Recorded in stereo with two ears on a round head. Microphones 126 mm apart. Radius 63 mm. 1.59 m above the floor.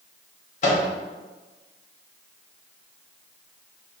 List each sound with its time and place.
0.6 s a microwave: 55° left (ahead or behind), 0.8 m